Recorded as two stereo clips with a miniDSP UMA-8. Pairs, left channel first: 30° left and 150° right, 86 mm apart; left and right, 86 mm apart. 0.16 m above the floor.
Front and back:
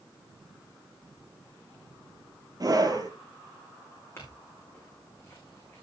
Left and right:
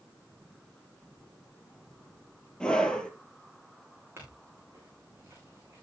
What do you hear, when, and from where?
2.6 s a scream: 170° left, 3.5 m
4.2 s a clink: 25° right, 7.5 m